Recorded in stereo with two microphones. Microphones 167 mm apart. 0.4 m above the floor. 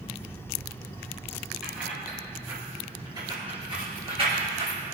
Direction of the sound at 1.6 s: 5° right (ahead or behind).